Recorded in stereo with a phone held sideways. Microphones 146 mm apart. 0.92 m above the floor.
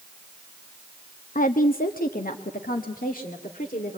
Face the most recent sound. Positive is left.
turn(degrees=70)  # may be behind; listen again after turning